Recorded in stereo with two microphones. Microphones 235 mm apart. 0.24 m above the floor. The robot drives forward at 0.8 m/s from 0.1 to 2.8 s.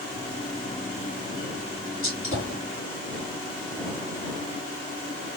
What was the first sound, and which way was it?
A gunshot, 60° left (ahead or behind).